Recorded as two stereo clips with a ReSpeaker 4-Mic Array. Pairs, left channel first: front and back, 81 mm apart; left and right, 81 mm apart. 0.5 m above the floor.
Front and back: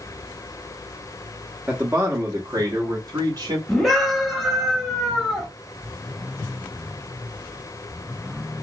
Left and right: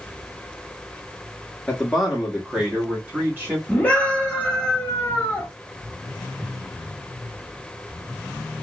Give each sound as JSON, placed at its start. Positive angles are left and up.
{"t": 1.7, "sound": "a man speaking", "azimuth_deg": 150, "distance_m": 0.7}
{"t": 3.7, "sound": "a scream", "azimuth_deg": 85, "distance_m": 1.2}